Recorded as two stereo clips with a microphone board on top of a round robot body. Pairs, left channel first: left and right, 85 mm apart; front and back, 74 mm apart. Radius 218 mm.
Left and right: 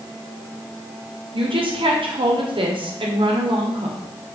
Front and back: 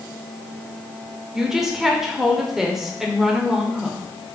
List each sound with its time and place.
1.3 s a woman speaking: 95° right, 2 m